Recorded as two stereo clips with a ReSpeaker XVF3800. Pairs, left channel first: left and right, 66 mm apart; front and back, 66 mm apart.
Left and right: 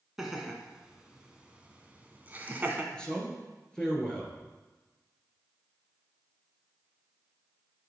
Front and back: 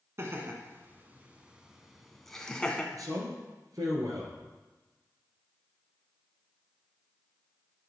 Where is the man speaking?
165° left, 2.5 m.